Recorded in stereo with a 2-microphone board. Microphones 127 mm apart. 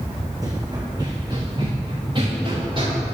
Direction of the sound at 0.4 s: 30° right (ahead or behind).